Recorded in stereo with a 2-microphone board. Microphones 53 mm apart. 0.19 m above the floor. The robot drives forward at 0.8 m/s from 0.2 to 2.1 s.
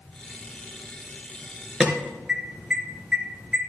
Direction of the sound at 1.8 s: 15° right (ahead or behind).